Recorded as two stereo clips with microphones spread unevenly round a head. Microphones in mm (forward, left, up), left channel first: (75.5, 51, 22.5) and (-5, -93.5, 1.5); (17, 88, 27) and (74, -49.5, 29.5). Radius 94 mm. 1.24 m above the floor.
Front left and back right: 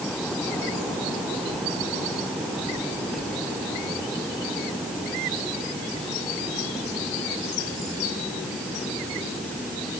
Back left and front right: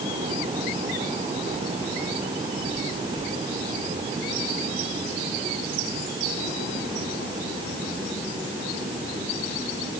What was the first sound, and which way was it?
Only background noise.